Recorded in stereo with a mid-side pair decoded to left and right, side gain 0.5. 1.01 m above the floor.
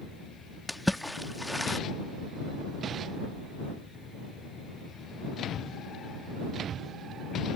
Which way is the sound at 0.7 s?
Straight ahead.